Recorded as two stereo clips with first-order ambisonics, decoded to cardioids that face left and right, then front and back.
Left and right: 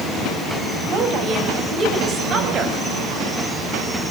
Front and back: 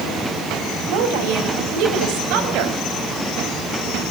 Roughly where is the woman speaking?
Behind right.